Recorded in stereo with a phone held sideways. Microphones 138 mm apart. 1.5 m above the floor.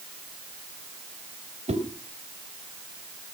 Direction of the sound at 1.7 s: 60° right (ahead or behind).